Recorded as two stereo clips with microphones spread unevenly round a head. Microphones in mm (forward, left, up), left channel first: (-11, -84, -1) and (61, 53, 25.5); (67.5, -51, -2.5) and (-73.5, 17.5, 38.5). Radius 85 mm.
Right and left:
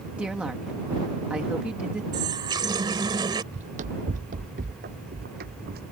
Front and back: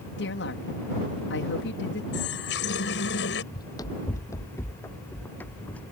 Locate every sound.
0.2 s a woman speaking: 20° right
2.1 s a running tap: straight ahead
3.5 s running footsteps: 50° left; by 5.9 s 60° left